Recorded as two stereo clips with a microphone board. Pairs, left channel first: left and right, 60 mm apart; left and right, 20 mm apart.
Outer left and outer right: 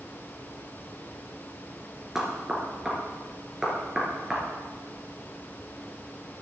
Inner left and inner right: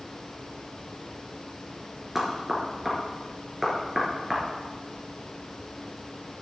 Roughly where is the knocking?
Centre.